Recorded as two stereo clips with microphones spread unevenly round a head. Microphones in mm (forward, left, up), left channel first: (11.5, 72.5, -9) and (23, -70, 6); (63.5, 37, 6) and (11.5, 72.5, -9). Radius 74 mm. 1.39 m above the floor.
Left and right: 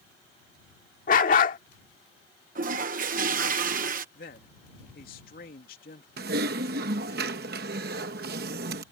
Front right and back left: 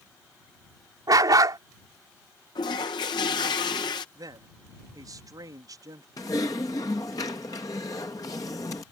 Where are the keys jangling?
I don't hear keys jangling.